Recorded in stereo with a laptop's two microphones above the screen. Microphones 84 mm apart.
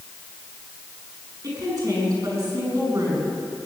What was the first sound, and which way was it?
A woman speaking, 50° right (ahead or behind).